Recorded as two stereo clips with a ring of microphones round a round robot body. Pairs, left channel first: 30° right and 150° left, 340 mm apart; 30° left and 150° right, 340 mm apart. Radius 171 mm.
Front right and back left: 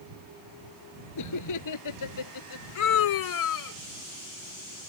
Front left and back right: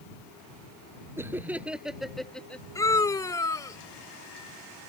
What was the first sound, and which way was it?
Laughter, 65° right.